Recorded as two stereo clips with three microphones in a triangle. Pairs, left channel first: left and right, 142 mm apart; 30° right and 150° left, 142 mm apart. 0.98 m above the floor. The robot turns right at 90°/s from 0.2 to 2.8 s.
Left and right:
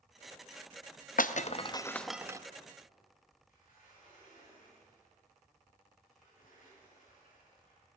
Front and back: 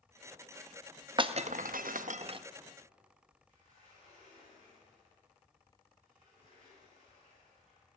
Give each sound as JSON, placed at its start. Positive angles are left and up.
{"t": 1.2, "sound": "breaking glass", "azimuth_deg": 95, "distance_m": 0.5}
{"t": 3.5, "sound": "a sliding door", "azimuth_deg": 115, "distance_m": 7.5}